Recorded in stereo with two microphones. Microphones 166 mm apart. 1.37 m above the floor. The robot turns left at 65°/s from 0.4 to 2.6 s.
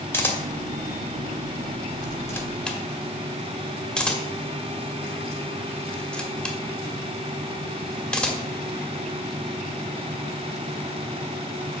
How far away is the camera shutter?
About 1.2 m.